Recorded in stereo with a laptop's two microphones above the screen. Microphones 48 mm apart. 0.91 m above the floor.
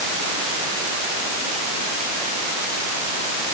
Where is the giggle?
No giggle in this recording.